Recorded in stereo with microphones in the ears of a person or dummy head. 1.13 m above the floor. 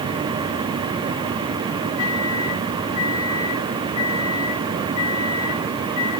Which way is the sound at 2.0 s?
70° left (ahead or behind).